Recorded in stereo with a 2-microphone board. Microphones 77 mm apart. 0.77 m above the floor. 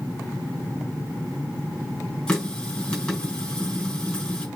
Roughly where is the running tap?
Centre.